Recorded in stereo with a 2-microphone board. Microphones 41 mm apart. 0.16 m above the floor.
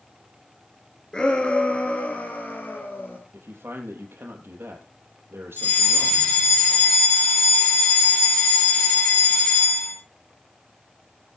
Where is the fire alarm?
55° left (ahead or behind), 9.5 m.